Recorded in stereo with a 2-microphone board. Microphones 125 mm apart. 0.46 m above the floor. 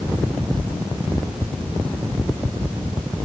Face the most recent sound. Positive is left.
No sound to turn to.